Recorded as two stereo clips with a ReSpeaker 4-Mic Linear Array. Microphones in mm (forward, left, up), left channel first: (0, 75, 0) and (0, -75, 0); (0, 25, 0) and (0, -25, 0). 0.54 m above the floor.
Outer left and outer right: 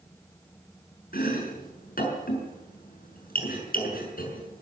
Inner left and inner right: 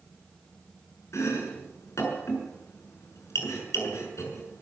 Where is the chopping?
70° left (ahead or behind), 6.5 m.